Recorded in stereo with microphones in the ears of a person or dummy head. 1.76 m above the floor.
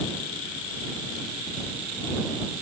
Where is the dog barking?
No dog barking in this recording.